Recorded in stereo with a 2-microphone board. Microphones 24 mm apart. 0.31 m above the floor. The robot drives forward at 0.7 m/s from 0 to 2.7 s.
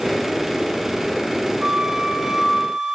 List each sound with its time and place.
1.6 s a flute: 25° right (ahead or behind), 1.0 m; by 3.0 s 15° right (ahead or behind), 1.6 m